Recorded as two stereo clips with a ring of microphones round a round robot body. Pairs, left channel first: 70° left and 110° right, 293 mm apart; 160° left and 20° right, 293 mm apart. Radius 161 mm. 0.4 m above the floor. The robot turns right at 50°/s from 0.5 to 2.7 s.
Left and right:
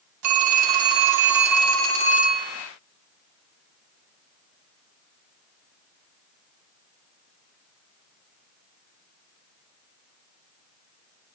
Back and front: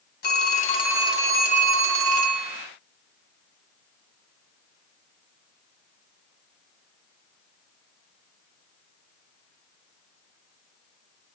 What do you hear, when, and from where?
0.2 s a phone ringing: 145° right, 2 m; by 2.7 s 35° right, 2 m